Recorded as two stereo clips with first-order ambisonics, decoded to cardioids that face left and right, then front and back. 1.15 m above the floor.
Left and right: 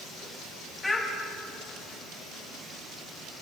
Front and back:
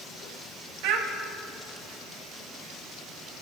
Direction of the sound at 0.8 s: 175° left.